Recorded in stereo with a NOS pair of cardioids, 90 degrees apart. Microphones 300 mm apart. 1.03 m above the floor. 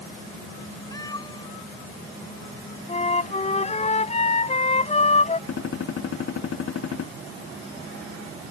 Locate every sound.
0.9 s a cat meowing: 15° left; by 3.9 s 25° left
2.9 s a flute: 25° left
5.5 s a gunshot: 55° left